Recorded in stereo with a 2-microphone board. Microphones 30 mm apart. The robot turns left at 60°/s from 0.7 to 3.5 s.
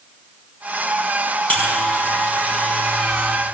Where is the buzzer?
50° left (ahead or behind), 6.5 m; by 3.4 s 15° left (ahead or behind), 6.5 m.